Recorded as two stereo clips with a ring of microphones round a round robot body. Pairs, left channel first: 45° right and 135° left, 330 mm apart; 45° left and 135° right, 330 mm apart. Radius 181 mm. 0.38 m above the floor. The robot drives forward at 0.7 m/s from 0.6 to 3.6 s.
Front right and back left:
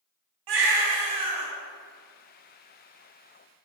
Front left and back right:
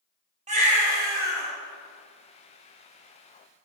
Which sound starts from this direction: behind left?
A baby crying, at 0.5 s.